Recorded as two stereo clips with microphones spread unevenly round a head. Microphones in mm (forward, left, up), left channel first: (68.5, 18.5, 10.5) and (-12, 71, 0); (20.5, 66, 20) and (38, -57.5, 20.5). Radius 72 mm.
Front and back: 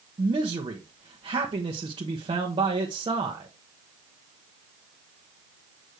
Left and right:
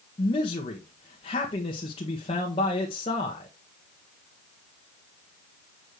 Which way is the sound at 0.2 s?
140° left.